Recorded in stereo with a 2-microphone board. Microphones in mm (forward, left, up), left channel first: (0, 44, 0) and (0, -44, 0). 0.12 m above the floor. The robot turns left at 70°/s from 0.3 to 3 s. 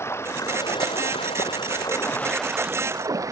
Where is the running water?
150° left; by 3.3 s 40° right.